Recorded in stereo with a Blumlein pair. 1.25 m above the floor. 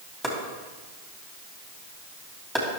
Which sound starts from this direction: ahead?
Chopping, at 0.2 s.